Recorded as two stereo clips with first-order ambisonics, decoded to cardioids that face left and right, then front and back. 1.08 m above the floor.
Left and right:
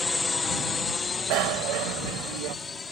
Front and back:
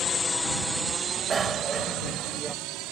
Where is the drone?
15° left; by 2.9 s 165° left.